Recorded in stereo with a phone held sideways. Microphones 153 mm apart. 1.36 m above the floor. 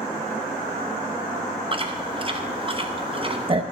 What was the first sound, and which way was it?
Chewing, 35° right (ahead or behind).